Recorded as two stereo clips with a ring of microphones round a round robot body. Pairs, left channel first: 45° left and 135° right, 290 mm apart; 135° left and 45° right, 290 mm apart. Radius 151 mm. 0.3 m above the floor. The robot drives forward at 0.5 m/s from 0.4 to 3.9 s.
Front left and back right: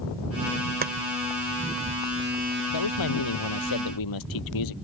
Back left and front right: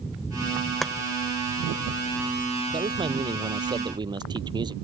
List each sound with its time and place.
0.8 s chopping: 135° right; by 0.9 s 140° right
2.7 s a man speaking: 30° left